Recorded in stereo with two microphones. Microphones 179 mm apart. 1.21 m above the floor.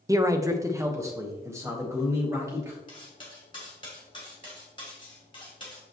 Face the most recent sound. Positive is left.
turn(degrees=25)  # may be behind; listen again after turning